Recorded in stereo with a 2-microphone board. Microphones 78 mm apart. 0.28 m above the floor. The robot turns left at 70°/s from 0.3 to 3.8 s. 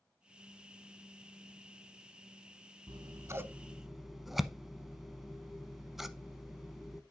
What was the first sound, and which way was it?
Scissors, 65° right (ahead or behind).